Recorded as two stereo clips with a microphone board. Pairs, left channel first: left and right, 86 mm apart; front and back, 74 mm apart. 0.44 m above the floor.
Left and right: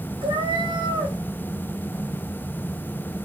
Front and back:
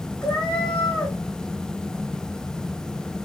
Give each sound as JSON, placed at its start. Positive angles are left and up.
{"t": 0.2, "sound": "a cat meowing", "azimuth_deg": -80, "distance_m": 4.0}